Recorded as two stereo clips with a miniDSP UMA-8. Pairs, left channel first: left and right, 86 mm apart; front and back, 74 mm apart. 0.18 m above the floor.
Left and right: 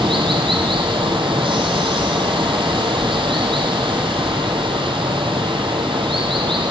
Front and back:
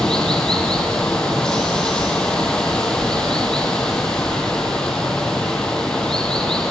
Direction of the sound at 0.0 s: 80° right.